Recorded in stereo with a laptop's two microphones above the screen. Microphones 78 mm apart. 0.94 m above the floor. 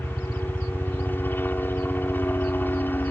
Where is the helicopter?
25° left (ahead or behind).